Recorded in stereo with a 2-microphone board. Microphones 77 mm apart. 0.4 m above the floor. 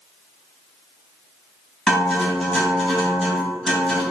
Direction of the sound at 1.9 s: 10° left (ahead or behind).